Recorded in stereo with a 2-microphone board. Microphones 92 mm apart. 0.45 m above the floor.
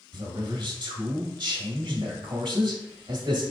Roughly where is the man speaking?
Right.